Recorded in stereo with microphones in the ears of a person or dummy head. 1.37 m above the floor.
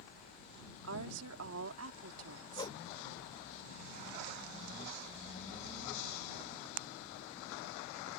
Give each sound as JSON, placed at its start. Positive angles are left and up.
{"t": 0.8, "sound": "a woman speaking", "side_deg": -80}
{"t": 2.6, "sound": "a whoosh", "side_deg": 20}